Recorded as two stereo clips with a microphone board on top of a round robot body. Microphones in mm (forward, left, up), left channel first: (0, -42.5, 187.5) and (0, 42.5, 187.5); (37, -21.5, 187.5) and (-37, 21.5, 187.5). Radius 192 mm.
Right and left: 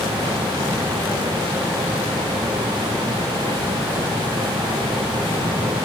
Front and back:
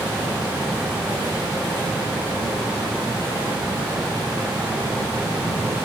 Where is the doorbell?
No doorbell in this recording.